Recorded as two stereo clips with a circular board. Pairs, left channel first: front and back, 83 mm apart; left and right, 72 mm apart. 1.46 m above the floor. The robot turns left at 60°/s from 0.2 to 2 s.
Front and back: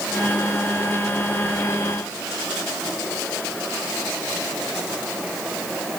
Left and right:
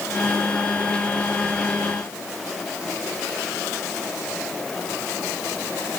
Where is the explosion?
I don't hear an explosion.